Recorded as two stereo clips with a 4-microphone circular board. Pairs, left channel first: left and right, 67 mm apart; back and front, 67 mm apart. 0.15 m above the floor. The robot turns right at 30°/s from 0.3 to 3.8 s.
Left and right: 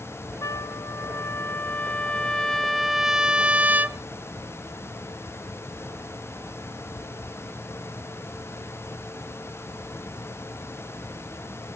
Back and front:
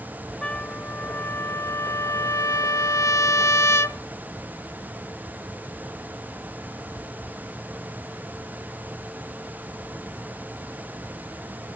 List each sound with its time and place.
0.4 s a trumpet: 110° left, 0.6 m; by 4.0 s 150° right, 0.6 m